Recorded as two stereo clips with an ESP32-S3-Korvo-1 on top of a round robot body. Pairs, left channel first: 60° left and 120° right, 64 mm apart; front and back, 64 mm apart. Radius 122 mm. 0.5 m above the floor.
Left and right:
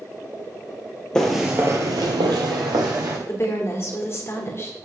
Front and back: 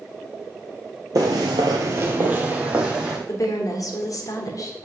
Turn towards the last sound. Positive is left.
turn(degrees=20)